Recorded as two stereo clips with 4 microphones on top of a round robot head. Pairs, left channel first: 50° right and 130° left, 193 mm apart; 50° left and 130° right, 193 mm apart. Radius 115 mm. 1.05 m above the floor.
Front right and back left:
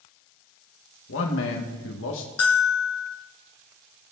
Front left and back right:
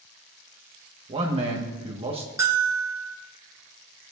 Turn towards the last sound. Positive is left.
turn(degrees=-55)